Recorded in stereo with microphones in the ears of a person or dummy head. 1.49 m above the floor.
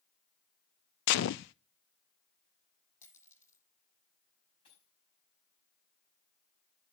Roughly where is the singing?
No singing in this recording.